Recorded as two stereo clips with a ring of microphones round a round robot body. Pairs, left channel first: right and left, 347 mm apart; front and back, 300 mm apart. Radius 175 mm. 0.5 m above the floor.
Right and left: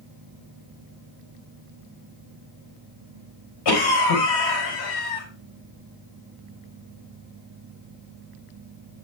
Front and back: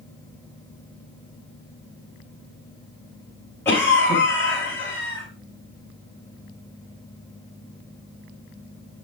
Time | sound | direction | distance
3.6 | a cough | 85° right | 4.5 m